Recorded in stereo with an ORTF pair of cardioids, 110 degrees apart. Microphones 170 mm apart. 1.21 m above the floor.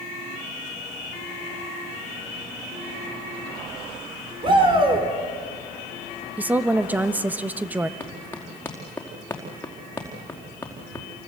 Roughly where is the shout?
Ahead right.